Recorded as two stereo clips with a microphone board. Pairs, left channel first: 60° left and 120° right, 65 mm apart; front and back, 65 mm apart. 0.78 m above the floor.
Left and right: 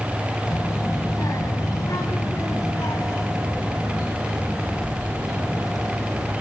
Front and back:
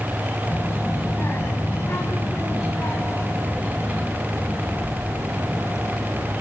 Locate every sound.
0.5 s a child speaking: 50° left, 3.5 m; by 6.3 s 40° left, 9 m